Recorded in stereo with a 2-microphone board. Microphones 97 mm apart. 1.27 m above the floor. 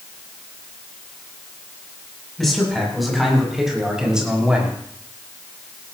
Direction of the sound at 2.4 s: Centre (ahead or behind).